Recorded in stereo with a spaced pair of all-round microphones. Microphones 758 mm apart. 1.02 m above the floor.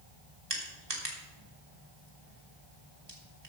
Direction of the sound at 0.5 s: 30° right (ahead or behind).